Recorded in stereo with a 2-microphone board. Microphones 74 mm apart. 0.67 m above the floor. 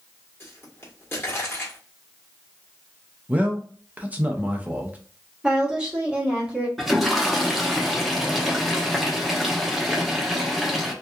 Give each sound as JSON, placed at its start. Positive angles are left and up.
{"t": 0.4, "sound": "a pop", "side_deg": 30, "distance_m": 1.2}
{"t": 3.3, "sound": "a man speaking", "side_deg": -20, "distance_m": 0.6}
{"t": 5.4, "sound": "a woman speaking", "side_deg": -10, "distance_m": 1.2}
{"t": 6.8, "sound": "a toilet flushing", "side_deg": 0, "distance_m": 0.7}